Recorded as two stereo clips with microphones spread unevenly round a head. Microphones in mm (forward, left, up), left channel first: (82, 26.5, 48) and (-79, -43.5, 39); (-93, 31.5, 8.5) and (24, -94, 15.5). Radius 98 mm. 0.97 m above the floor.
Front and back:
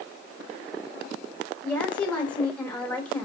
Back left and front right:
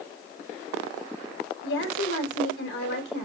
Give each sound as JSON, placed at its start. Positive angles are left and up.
{"t": 1.6, "sound": "a woman speaking", "azimuth_deg": 110, "distance_m": 3.0}